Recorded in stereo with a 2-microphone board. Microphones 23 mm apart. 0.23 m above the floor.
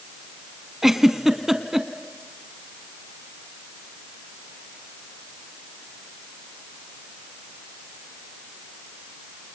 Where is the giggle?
20° right (ahead or behind), 1.1 m.